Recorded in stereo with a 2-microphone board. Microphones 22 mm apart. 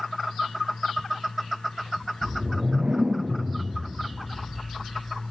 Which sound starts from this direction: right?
A whoosh, at 2.2 s.